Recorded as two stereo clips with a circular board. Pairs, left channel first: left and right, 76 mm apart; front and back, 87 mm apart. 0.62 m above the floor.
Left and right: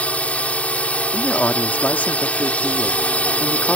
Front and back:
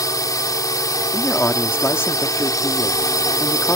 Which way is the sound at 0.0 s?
25° left.